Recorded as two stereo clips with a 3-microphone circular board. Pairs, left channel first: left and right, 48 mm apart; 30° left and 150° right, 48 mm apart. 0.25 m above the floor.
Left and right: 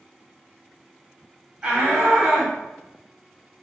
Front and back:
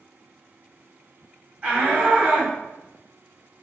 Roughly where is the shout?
Behind right.